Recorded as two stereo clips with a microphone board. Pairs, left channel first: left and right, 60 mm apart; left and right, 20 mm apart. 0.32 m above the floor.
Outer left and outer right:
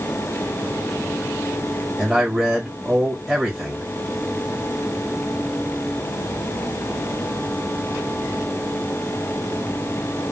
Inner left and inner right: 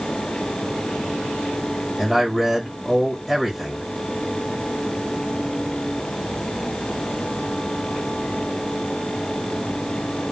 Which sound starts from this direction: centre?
A man speaking, at 2.0 s.